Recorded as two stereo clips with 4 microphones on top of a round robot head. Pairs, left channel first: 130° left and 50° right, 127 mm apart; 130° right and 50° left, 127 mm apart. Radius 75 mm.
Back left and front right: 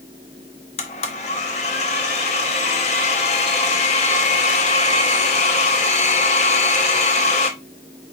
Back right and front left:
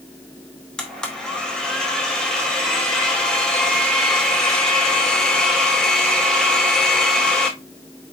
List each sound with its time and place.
0.8 s a blender: 145° left, 0.8 m